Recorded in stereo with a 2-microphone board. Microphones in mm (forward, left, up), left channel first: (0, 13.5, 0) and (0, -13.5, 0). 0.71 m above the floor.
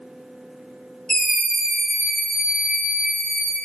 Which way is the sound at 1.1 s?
30° left (ahead or behind).